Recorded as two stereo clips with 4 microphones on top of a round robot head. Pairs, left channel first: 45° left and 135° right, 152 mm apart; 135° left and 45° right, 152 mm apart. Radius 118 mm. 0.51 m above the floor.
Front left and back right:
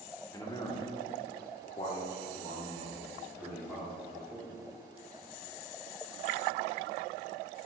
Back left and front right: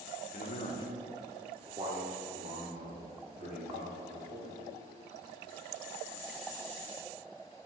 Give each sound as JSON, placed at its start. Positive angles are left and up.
{"t": 0.3, "sound": "a man speaking", "azimuth_deg": 110, "distance_m": 1.6}